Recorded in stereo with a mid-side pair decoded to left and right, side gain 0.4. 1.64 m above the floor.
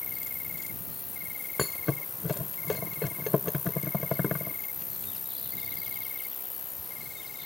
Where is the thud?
30° left.